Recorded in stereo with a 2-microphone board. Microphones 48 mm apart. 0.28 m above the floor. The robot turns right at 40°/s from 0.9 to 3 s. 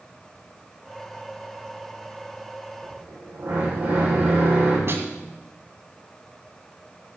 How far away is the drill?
About 8.5 m.